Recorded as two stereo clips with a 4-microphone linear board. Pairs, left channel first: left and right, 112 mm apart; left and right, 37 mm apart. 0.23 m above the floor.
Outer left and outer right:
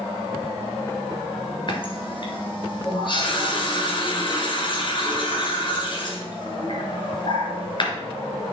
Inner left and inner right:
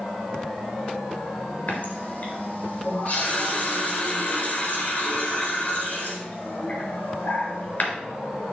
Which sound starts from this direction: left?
A running tap, at 1.7 s.